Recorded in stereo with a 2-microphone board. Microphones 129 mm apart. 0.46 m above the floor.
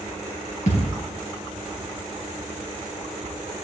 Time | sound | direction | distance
0.7 | a thud | 65° left (ahead or behind) | 3.5 m